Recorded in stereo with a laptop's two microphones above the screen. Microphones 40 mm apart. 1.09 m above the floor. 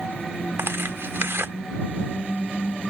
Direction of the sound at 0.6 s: 75° right (ahead or behind).